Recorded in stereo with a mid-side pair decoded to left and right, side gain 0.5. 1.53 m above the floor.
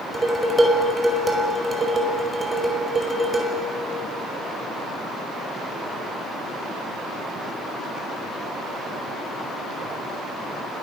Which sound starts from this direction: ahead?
Dishes clattering, at 0.1 s.